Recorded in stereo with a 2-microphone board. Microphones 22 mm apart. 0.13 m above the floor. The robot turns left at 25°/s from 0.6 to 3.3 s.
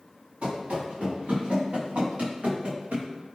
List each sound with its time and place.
0.4 s running footsteps: 65° right (ahead or behind), 1.9 m; by 3.1 s 50° right (ahead or behind), 1.8 m